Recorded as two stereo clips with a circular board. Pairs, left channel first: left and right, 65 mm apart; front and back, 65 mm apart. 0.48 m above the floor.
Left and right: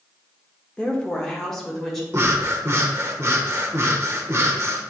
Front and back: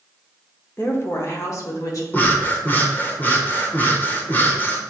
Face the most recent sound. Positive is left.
turn(degrees=-55)